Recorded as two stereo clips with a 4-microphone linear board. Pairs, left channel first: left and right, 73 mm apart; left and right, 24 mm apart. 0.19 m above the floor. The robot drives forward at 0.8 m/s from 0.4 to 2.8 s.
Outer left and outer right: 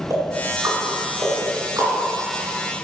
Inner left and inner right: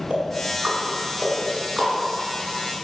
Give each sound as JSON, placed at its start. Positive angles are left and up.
{"t": 0.1, "sound": "ticking", "side_deg": -45, "distance_m": 2.0}